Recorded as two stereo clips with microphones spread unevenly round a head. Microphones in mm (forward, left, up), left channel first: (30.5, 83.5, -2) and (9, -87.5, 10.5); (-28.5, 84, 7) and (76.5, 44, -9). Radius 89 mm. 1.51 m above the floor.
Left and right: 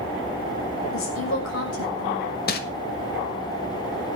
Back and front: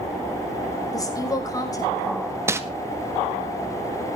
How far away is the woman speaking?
About 6 m.